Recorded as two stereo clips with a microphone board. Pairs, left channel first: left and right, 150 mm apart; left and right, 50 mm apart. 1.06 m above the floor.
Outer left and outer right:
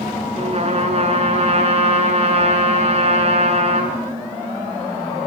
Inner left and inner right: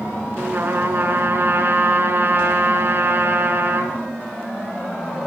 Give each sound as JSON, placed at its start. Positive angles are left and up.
{"t": 0.3, "sound": "a trumpet", "side_deg": -45, "distance_m": 5.5}